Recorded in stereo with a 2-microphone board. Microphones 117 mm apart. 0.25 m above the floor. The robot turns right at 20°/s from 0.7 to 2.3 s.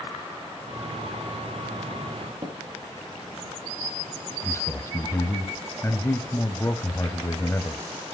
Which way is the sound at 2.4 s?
35° right (ahead or behind).